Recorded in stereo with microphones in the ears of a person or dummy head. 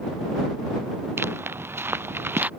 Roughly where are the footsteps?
Centre.